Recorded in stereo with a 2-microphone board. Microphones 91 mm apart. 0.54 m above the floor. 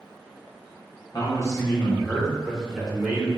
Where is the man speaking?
45° left (ahead or behind), 1.0 m; by 3.3 s 15° right (ahead or behind), 1.6 m.